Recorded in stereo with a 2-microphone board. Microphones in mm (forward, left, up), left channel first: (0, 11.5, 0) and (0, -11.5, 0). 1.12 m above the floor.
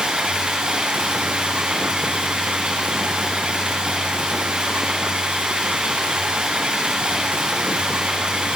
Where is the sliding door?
I don't hear a sliding door.